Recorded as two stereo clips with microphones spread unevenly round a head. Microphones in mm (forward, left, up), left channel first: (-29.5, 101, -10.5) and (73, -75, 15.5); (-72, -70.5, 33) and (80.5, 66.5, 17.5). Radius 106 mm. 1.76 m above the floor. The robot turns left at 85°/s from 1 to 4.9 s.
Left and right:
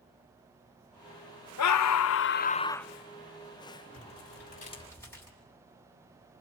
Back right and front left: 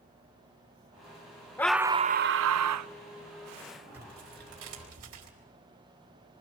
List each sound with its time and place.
1.6 s a scream: 140° left, 0.5 m; by 2.9 s 30° left, 0.5 m
3.9 s tearing paper: 125° left, 6 m; by 5.3 s 40° left, 6 m